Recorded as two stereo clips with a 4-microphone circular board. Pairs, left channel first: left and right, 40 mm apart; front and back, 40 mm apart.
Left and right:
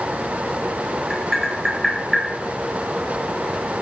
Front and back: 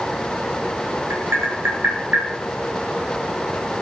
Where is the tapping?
170° right, 5 m.